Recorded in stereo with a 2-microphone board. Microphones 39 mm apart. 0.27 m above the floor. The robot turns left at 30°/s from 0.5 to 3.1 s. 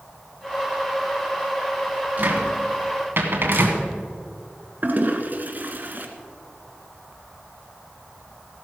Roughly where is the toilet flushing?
Right.